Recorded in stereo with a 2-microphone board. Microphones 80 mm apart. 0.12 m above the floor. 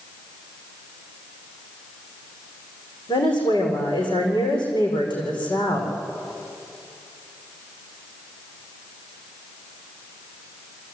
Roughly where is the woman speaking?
Left.